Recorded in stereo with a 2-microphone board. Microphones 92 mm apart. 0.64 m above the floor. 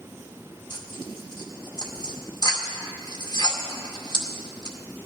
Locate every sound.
0.7 s tearing paper: 55° left (ahead or behind), 2 m